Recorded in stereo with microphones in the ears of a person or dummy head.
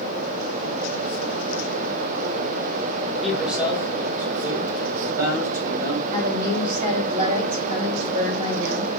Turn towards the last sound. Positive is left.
turn(degrees=-35)  # may be behind; listen again after turning